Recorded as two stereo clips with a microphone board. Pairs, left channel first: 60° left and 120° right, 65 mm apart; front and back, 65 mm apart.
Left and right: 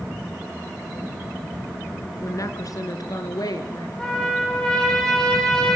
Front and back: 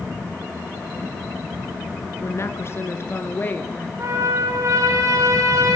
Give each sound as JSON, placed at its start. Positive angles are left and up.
{"t": 2.2, "sound": "a woman speaking", "azimuth_deg": 35, "distance_m": 3.0}
{"t": 4.0, "sound": "a trumpet", "azimuth_deg": 140, "distance_m": 9.0}